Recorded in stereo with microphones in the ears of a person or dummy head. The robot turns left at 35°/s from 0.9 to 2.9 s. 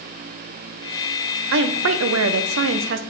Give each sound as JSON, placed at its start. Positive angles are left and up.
{"t": 1.5, "sound": "a woman speaking", "azimuth_deg": -65, "distance_m": 0.6}